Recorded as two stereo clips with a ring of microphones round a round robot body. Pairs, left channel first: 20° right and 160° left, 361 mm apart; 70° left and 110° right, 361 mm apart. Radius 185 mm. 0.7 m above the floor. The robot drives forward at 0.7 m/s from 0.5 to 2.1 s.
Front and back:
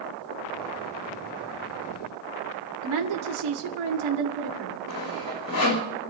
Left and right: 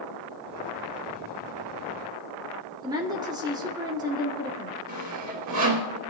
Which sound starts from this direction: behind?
A woman speaking, at 2.8 s.